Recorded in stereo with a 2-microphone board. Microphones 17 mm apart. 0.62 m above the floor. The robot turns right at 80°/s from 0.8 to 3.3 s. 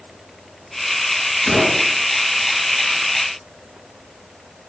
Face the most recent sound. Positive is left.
turn(degrees=-40)